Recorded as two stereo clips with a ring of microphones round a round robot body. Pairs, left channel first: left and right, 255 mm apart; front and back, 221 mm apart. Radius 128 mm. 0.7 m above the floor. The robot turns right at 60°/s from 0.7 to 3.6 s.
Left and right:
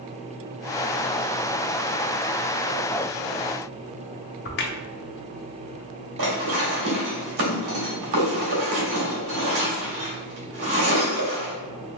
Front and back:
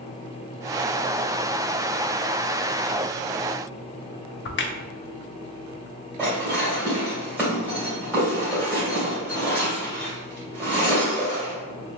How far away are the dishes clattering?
About 1.7 m.